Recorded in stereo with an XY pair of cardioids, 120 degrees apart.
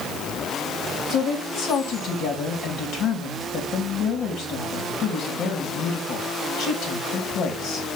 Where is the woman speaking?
65° left, 3.5 m.